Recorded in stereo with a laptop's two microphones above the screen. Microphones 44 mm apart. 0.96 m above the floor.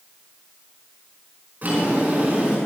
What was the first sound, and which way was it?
A drawer, 35° right (ahead or behind).